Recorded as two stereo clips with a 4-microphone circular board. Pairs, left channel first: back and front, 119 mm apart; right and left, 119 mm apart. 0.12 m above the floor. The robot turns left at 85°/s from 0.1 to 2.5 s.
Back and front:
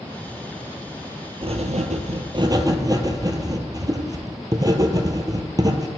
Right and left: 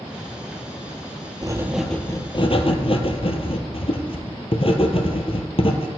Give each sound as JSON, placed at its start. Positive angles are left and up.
{"t": 1.4, "sound": "writing", "azimuth_deg": 35, "distance_m": 0.8}